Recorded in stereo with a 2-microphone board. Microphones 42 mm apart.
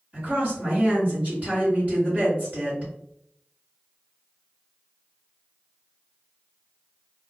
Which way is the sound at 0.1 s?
40° right (ahead or behind).